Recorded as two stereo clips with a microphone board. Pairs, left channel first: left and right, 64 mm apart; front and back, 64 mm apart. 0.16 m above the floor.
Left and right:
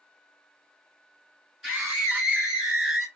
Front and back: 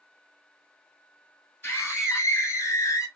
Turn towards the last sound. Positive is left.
turn(degrees=-10)